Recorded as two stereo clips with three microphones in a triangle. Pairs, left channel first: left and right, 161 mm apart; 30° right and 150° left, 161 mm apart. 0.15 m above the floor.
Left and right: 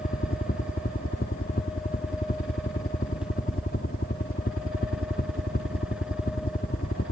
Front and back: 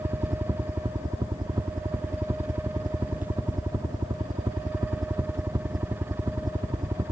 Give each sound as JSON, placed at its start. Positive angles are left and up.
{"t": 0.0, "sound": "a helicopter", "azimuth_deg": 85}